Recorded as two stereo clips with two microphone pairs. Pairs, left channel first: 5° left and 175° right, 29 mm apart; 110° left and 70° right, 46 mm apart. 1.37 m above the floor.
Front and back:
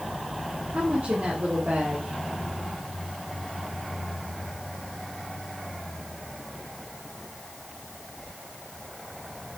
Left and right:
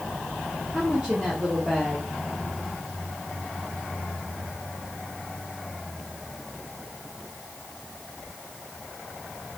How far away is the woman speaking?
About 2.0 m.